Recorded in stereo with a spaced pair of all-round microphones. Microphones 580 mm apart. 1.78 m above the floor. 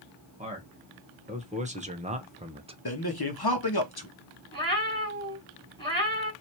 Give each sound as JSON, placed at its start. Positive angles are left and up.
{"t": 0.4, "sound": "a man speaking", "side_deg": -10, "distance_m": 1.6}
{"t": 2.9, "sound": "a man speaking", "side_deg": 40, "distance_m": 1.2}
{"t": 4.5, "sound": "a cat meowing", "side_deg": 10, "distance_m": 2.5}